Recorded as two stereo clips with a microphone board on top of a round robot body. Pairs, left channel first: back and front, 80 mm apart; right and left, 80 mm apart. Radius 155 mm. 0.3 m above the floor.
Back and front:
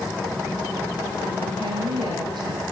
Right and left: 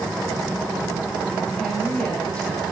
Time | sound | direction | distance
1.6 | a woman speaking | 10° right | 7 m